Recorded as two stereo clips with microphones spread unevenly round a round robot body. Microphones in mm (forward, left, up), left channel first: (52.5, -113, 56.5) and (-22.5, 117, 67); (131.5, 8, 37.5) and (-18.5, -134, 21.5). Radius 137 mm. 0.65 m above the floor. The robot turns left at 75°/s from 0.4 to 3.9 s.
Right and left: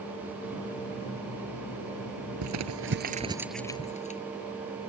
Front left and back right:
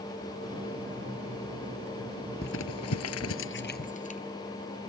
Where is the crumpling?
105° left; by 4.2 s 10° right.